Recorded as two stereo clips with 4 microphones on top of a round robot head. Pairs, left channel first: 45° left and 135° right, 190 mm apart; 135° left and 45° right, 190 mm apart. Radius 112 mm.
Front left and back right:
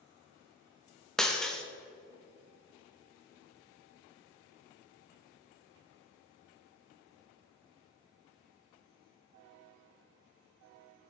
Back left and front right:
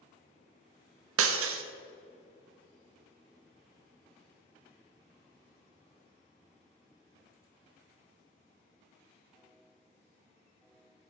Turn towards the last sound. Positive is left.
turn(degrees=-40)